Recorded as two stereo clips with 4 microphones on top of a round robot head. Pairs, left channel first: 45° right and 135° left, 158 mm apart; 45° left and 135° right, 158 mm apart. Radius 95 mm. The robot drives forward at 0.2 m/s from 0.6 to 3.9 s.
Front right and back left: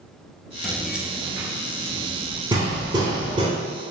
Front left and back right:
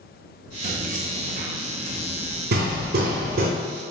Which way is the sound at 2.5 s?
160° right.